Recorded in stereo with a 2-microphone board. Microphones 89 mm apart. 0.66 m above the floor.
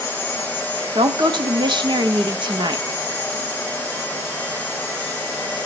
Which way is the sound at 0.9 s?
60° right (ahead or behind).